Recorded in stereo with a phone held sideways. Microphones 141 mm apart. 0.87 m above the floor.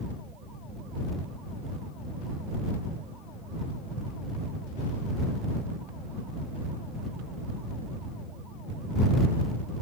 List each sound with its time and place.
Only background noise.